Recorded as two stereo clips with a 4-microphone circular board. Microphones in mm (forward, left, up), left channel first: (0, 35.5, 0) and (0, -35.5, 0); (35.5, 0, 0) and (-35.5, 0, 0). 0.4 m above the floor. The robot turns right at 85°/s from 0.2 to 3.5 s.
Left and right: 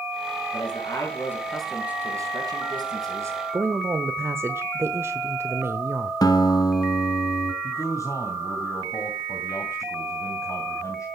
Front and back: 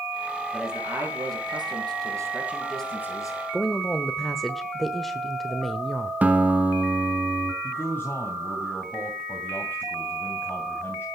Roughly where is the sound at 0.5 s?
Left.